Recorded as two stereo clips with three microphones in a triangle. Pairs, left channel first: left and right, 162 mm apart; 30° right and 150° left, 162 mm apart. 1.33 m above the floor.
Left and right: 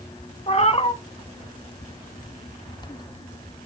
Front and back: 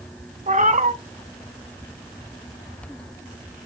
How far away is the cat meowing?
About 1.6 m.